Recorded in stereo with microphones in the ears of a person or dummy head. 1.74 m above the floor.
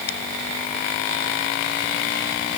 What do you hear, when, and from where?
Only background noise.